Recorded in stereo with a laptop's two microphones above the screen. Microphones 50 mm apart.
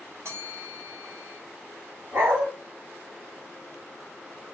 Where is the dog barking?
70° right (ahead or behind), 1.6 m.